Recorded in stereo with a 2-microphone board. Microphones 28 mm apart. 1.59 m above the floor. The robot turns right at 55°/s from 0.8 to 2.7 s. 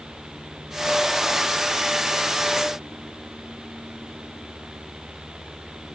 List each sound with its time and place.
Only background noise.